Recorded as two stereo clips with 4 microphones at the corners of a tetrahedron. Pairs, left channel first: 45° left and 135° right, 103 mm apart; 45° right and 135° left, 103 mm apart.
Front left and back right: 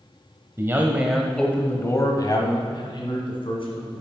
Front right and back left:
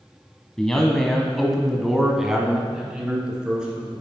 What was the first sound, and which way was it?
A man speaking, 120° right.